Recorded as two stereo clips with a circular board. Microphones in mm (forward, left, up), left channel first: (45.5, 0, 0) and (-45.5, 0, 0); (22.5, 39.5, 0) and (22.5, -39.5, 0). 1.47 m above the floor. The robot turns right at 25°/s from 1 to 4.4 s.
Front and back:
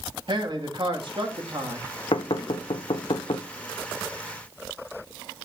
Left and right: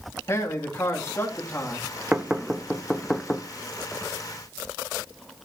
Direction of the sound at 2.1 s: 20° right.